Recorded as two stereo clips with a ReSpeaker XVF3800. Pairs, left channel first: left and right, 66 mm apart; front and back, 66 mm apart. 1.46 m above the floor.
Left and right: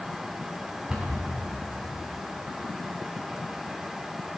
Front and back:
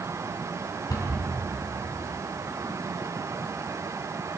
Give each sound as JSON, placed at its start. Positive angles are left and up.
{"t": 0.9, "sound": "a cupboard door", "azimuth_deg": -15, "distance_m": 3.0}